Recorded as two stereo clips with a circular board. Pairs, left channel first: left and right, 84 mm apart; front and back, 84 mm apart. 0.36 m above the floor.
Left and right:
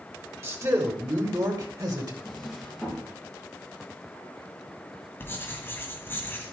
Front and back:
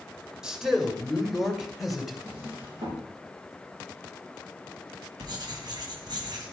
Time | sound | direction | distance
0.4 | a man speaking | 105° right | 1.6 m
2.2 | a drawer | straight behind | 5 m
5.2 | writing | 150° left | 2.5 m